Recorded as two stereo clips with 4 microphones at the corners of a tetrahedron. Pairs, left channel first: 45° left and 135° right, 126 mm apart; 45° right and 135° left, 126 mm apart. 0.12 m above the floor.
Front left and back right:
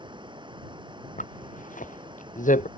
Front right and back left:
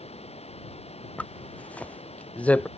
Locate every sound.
0.0 s running water: 85° right
1.2 s a zipper: 35° left